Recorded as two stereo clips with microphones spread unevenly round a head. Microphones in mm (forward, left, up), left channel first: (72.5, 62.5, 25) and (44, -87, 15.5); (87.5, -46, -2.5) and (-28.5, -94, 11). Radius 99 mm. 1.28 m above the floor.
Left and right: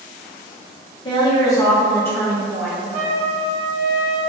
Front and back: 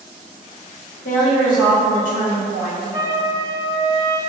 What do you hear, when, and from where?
1.1 s a woman speaking: 20° left, 1.1 m; by 2.8 s 5° right, 1.8 m
2.9 s a trumpet: 125° right, 0.9 m